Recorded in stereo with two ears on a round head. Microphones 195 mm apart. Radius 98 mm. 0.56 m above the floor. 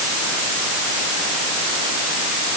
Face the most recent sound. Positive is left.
No sound to turn to.